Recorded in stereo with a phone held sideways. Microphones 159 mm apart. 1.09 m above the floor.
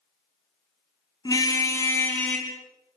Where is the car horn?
25° left (ahead or behind), 5 m; by 2.5 s 5° left (ahead or behind), 4.5 m.